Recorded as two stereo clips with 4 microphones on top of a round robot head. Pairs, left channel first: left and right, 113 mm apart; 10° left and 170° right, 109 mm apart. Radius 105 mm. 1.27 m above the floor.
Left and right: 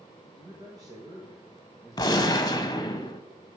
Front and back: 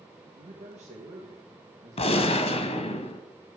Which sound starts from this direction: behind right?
A man speaking, at 0.4 s.